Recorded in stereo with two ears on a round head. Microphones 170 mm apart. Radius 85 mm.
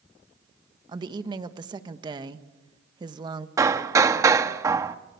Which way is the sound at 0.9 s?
25° right (ahead or behind).